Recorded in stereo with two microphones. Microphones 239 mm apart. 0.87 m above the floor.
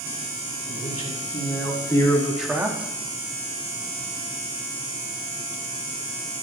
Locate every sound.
0.7 s a man speaking: 30° left (ahead or behind), 3 m; by 2.8 s 15° right (ahead or behind), 1.2 m